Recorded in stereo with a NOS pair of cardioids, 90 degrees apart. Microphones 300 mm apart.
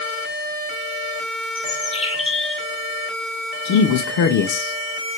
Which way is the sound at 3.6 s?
70° left.